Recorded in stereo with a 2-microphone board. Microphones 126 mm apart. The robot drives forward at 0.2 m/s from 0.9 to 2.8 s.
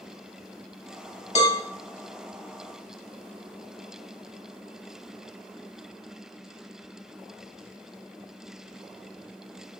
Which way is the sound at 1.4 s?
55° left (ahead or behind).